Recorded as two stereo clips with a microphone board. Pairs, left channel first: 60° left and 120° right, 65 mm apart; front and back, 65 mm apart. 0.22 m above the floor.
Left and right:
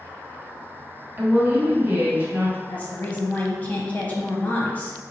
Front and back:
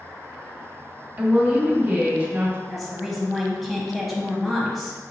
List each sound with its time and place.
1.2 s a woman speaking: 145° right, 1.6 m
2.7 s a woman speaking: 90° left, 1.0 m